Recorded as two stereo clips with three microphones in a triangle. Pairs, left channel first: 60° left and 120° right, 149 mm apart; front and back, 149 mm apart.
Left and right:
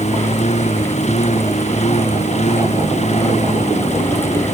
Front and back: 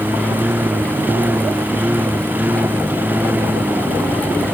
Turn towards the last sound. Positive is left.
turn(degrees=100)